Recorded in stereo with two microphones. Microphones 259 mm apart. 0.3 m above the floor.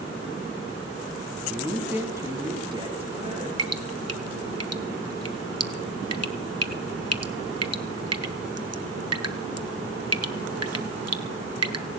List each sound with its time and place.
1.5 s a man speaking: centre (ahead or behind), 3 m; by 3.5 s 30° right (ahead or behind), 3 m
3.6 s dripping: 70° right (ahead or behind), 0.9 m